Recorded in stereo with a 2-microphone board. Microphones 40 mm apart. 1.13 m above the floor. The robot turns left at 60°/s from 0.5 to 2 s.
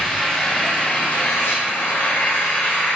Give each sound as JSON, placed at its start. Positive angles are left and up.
{"t": 0.0, "sound": "an engine running", "azimuth_deg": 160, "distance_m": 0.8}